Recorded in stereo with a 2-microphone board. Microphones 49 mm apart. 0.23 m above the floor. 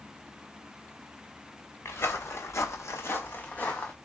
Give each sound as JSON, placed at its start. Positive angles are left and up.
{"t": 1.9, "sound": "footsteps", "side_deg": 55, "distance_m": 1.0}